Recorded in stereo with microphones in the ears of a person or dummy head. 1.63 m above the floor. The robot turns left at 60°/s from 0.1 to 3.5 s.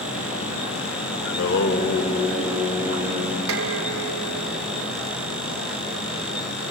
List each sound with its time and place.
1.2 s singing: 85° left, 3 m; by 3.4 s 45° right, 3 m
3.5 s dishes clattering: 75° right (ahead or behind), 3 m